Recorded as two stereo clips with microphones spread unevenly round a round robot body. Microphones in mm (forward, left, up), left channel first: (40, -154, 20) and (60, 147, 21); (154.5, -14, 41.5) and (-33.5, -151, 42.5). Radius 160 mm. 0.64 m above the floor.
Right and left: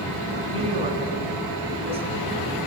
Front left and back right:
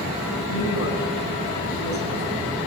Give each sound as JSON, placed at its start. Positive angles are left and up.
{"t": 0.5, "sound": "a woman speaking", "azimuth_deg": 15, "distance_m": 6.5}